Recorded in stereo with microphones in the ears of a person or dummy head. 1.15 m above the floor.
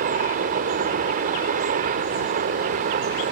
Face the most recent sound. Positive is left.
turn(degrees=-45)  # may be behind; listen again after turning